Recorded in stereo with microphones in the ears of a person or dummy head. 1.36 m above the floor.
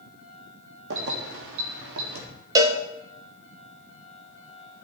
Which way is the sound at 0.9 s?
70° right (ahead or behind).